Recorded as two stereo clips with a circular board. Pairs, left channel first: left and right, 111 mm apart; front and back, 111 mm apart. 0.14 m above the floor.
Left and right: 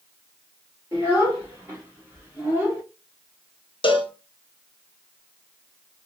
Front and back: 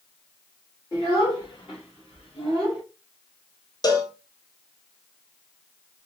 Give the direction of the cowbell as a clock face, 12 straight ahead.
10 o'clock.